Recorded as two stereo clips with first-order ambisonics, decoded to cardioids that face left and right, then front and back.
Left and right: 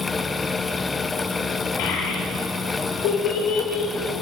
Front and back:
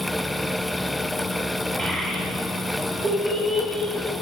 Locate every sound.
1.8 s a child speaking: 100° left, 1.2 m